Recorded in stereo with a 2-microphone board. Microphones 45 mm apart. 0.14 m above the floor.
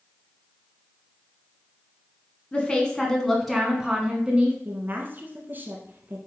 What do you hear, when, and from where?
2.5 s a woman speaking: 25° left (ahead or behind), 1.6 m; by 4.5 s 20° right (ahead or behind), 1.6 m
4.7 s a woman speaking: 40° right (ahead or behind), 1.3 m